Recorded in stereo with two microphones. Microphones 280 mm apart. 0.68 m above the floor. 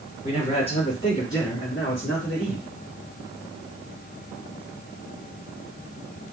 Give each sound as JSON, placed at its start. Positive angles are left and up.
{"t": 0.2, "sound": "a man speaking", "side_deg": 35, "distance_m": 2.0}